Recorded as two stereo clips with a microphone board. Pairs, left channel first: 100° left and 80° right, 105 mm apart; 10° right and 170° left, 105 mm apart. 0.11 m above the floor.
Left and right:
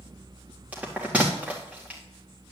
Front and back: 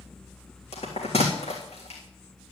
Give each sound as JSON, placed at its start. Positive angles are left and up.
{"t": 0.7, "sound": "a bell", "azimuth_deg": -5, "distance_m": 3.5}